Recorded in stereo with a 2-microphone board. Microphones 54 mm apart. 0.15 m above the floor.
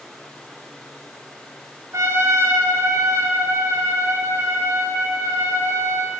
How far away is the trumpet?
About 1.0 m.